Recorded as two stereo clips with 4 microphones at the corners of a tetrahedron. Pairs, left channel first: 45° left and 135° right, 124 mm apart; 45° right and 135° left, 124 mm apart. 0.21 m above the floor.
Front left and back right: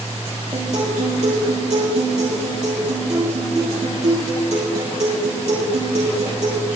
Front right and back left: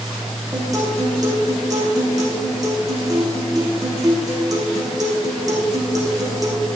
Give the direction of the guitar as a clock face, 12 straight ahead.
6 o'clock.